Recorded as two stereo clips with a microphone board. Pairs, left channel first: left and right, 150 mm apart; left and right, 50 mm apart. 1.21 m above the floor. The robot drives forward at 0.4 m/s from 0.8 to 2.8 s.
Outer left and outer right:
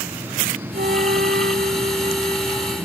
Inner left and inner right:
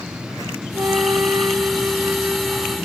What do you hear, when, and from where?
0.7 s a flute: 85° right, 1.1 m; by 2.8 s 55° right (ahead or behind), 1.3 m